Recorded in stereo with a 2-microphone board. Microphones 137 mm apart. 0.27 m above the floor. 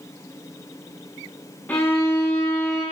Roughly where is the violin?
Centre.